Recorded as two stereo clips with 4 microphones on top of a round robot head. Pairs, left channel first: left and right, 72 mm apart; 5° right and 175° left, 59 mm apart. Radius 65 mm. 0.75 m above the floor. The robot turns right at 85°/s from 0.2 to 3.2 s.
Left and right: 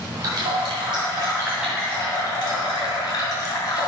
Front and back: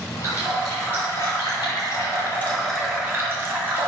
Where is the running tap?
130° right, 2 m; by 3.9 s 120° left, 2 m.